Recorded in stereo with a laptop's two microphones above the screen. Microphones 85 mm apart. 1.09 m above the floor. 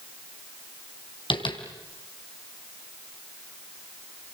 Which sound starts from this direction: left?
Tapping, at 1.3 s.